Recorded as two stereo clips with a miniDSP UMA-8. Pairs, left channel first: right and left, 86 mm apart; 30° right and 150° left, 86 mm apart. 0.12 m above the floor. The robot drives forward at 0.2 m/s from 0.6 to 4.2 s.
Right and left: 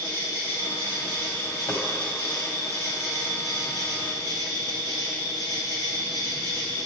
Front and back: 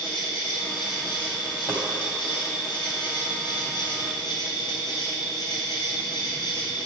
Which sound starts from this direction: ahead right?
An insect, at 0.0 s.